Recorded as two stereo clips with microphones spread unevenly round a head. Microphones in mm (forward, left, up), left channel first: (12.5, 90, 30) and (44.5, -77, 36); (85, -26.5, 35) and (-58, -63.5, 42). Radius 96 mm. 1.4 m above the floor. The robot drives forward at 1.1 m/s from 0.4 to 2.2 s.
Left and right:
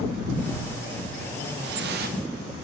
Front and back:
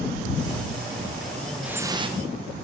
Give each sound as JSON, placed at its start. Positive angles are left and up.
{"t": 1.6, "sound": "dripping", "azimuth_deg": -80, "distance_m": 0.9}